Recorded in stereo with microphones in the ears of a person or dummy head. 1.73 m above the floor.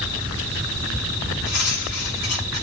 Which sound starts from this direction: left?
Cutlery clinking, at 1.4 s.